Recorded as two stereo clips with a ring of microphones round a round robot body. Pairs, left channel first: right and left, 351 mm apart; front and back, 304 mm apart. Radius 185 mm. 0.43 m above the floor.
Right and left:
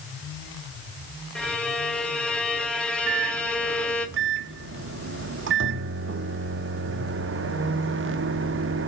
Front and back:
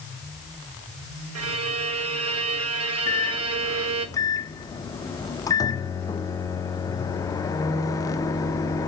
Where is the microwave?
70° left, 0.6 m.